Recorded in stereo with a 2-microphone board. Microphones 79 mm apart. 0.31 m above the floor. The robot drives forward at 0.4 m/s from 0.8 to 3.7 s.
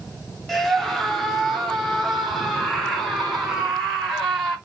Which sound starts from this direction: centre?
A scream, at 0.5 s.